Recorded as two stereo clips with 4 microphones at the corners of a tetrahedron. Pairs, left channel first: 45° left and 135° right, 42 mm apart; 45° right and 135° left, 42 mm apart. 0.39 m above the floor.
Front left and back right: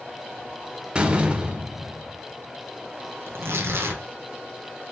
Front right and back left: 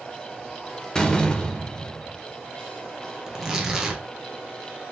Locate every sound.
0.9 s a door slam: 95° right, 0.6 m
3.3 s tearing paper: 145° right, 1.0 m